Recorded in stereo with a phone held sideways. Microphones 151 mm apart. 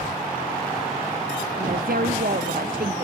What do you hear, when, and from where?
1.6 s a woman speaking: 75° right (ahead or behind), 0.8 m